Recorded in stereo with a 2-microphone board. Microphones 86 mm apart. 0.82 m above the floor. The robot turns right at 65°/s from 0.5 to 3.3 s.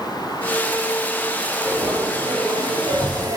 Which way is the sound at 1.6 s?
155° right.